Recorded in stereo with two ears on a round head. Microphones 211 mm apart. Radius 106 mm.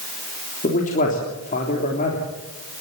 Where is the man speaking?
35° left (ahead or behind), 3.5 m.